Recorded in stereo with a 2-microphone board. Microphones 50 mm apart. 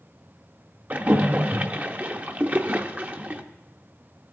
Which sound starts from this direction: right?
A splash, at 0.9 s.